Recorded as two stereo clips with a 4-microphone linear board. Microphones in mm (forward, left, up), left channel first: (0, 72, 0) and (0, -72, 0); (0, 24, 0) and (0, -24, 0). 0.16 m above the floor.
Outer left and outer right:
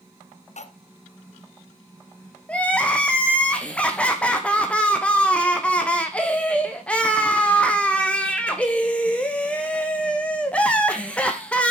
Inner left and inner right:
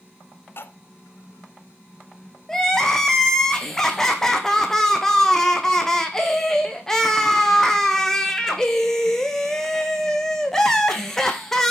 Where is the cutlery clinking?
55° left (ahead or behind), 0.9 m.